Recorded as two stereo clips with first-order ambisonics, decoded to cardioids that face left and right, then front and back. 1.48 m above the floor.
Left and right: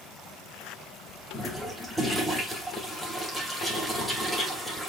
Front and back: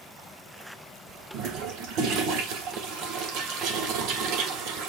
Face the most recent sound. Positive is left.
turn(degrees=180)